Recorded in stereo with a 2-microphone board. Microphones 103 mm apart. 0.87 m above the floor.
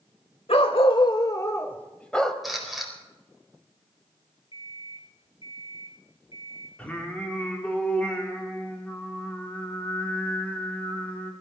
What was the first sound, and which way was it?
A dog barking, 70° left (ahead or behind).